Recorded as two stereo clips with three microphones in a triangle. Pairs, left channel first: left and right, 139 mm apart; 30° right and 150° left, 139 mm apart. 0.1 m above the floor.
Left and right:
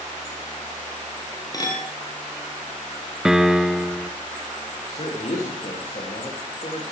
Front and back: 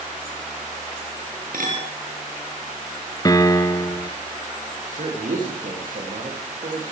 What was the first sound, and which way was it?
A clink, 155° left.